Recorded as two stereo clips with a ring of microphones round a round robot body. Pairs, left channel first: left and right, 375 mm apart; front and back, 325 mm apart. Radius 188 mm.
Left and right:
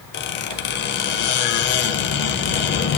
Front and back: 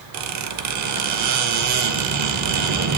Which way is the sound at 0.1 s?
150° left.